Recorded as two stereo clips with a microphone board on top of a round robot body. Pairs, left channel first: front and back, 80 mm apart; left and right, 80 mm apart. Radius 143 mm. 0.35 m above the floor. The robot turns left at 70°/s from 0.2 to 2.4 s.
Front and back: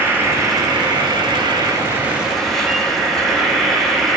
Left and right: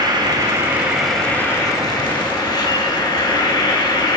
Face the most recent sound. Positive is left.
turn(degrees=85)